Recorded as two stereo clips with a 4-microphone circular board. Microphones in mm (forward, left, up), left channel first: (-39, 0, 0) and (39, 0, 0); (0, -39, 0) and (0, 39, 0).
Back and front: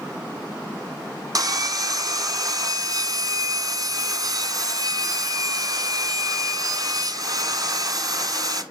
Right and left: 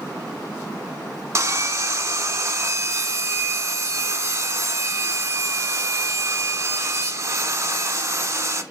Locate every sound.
1.4 s sawing: 40° left, 1.1 m